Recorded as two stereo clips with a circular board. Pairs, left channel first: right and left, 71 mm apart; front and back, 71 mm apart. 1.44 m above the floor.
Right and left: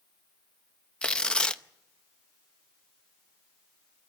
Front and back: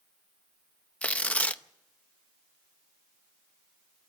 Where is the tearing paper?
35° right, 0.7 m.